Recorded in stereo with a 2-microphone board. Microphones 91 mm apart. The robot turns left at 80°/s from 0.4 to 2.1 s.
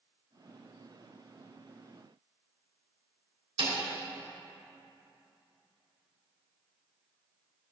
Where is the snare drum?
75° right (ahead or behind), 3 m.